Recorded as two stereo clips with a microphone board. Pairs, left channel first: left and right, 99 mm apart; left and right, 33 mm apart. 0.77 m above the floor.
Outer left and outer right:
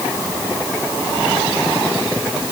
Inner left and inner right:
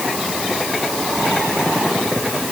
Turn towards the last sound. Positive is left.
No sound to turn to.